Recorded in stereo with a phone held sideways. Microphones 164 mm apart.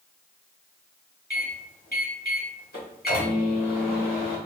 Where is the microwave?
65° left (ahead or behind), 1.4 m.